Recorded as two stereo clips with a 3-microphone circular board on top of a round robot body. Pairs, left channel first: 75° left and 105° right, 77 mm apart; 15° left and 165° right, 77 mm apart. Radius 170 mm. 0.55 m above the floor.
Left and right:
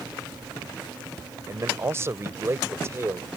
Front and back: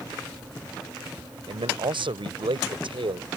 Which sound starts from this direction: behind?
A man speaking, at 1.5 s.